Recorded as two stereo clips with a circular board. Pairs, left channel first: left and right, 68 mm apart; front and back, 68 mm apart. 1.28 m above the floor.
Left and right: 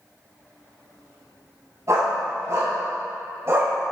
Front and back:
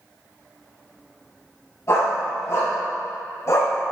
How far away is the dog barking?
About 3.5 m.